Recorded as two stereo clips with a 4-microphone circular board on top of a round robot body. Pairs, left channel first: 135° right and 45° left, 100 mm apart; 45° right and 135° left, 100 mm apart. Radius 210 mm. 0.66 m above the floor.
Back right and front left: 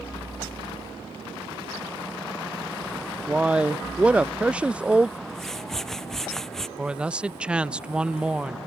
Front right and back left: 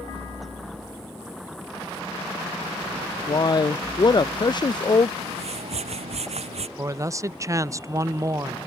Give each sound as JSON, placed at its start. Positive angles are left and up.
{"t": 3.3, "sound": "a man speaking", "azimuth_deg": -30}
{"t": 5.2, "sound": "a whoosh", "azimuth_deg": 140}
{"t": 6.8, "sound": "a man speaking", "azimuth_deg": 115}